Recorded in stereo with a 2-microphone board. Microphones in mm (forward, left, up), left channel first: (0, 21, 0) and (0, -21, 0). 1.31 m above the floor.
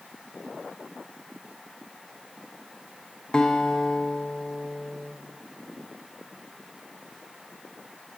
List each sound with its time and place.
3.3 s a guitar: 20° left (ahead or behind), 0.8 m